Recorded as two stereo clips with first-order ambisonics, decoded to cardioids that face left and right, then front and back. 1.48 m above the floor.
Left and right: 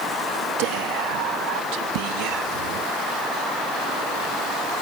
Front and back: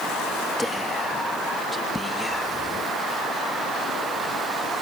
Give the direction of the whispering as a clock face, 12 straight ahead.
3 o'clock.